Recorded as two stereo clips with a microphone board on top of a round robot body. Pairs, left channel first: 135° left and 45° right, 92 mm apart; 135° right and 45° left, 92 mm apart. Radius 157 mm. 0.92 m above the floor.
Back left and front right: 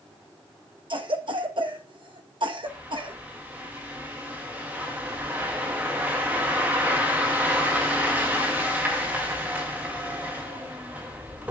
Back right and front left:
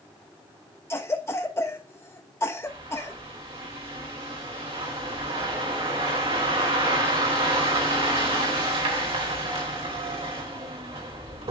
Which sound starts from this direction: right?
A cough, at 0.9 s.